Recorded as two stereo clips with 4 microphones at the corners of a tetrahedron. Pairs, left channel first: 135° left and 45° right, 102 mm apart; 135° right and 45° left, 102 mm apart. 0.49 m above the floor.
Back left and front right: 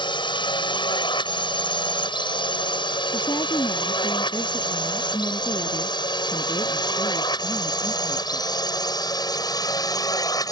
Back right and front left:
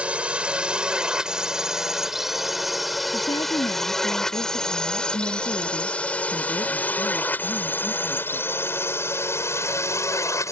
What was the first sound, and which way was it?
A drone, 120° left.